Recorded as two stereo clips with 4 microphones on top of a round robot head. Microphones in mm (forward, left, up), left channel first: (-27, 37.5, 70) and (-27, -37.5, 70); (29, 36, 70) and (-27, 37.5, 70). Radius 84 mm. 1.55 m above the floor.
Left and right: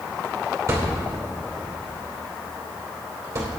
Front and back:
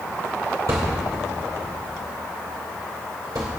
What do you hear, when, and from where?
0.7 s a thud: 140° right, 2.5 m